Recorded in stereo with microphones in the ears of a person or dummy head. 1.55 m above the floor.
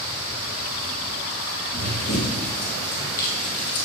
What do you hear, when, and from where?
1.7 s running footsteps: 40° left (ahead or behind), 1.9 m; by 3.9 s 60° left (ahead or behind), 3 m